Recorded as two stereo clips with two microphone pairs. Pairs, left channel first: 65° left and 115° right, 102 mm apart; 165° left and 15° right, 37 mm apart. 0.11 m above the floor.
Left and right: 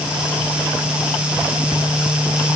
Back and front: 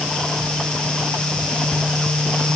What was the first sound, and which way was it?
Only background noise.